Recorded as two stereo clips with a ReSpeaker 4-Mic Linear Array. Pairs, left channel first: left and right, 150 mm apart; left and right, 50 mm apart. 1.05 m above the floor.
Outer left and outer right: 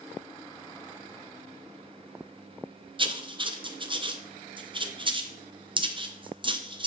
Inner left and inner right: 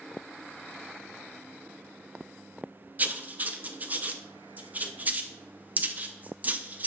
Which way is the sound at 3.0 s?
35° right (ahead or behind).